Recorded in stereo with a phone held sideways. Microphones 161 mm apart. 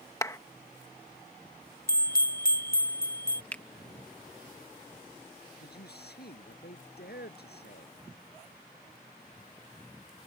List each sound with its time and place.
0.2 s a clap: 20° left (ahead or behind)
1.9 s a bell: 70° left (ahead or behind)
3.5 s a finger snap: 10° left (ahead or behind)
5.6 s a man speaking: 90° left